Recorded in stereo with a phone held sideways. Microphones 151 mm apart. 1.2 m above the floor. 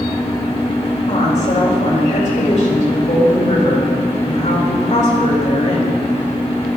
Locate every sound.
0.0 s a fan: 40° left (ahead or behind), 1.7 m
1.1 s a woman speaking: 50° left (ahead or behind), 3 m